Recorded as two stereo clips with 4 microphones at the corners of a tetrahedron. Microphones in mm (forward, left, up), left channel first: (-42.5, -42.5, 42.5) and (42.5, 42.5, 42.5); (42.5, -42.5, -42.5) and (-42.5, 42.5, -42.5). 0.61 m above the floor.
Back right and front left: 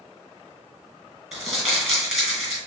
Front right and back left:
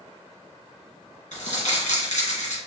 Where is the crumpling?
45° right, 2.5 m.